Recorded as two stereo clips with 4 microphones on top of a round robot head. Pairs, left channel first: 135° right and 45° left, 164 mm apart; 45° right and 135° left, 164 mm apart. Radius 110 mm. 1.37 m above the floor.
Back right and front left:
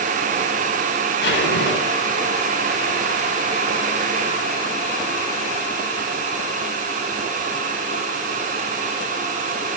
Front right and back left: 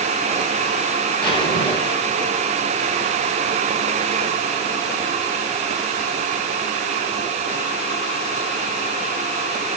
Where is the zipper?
110° right, 6.5 m.